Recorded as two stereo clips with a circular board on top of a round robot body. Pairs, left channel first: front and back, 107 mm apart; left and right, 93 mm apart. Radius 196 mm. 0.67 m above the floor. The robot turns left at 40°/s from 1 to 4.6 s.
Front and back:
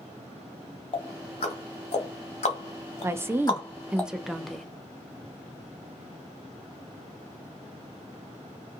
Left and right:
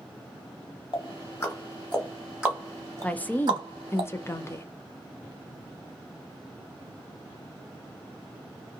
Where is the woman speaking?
145° left, 0.7 m; by 4.7 s 85° left, 0.7 m.